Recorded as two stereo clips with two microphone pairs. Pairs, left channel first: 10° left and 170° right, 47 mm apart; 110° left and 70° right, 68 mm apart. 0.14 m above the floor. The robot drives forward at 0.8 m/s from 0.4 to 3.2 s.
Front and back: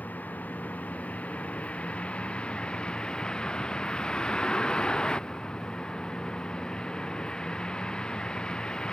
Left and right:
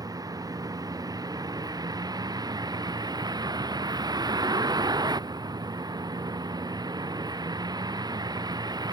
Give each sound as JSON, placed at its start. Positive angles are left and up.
{"t": 0.0, "sound": "a vehicle", "azimuth_deg": -45}